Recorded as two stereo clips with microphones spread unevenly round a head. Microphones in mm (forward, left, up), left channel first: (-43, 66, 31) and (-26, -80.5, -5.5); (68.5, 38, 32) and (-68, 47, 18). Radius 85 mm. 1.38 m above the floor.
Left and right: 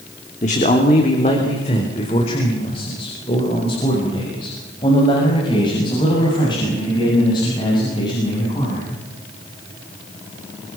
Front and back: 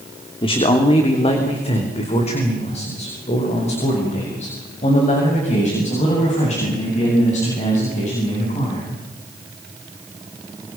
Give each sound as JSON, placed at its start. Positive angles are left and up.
{"t": 0.4, "sound": "a man speaking", "azimuth_deg": 45, "distance_m": 3.0}